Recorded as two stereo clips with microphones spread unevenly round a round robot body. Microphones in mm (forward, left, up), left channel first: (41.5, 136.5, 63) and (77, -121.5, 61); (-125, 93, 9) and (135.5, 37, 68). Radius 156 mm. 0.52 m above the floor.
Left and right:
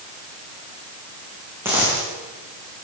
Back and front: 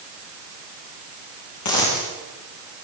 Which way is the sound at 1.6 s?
165° right.